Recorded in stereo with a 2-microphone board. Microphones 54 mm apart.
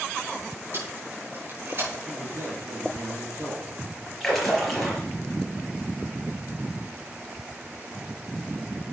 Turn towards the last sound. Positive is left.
turn(degrees=0)  # may be behind; listen again after turning